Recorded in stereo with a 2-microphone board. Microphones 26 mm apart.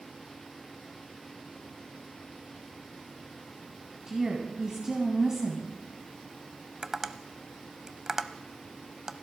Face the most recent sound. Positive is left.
turn(degrees=-20)  # may be behind; listen again after turning